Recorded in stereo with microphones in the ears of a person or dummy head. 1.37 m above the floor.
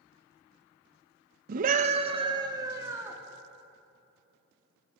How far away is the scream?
About 1.5 m.